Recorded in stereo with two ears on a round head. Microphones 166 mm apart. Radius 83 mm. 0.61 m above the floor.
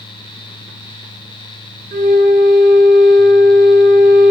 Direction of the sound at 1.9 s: 40° right (ahead or behind).